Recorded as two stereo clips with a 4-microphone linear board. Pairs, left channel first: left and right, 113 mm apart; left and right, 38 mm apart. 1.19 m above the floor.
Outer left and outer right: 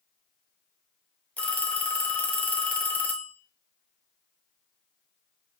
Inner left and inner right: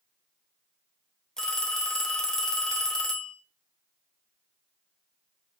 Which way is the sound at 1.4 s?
15° left (ahead or behind).